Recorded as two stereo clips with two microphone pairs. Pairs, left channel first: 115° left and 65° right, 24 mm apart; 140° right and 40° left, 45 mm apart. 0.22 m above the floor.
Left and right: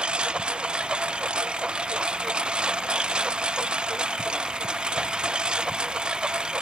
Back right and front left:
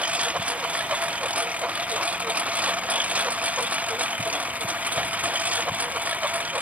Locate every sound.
0.0 s a lawn mower: 20° right; by 6.6 s 15° right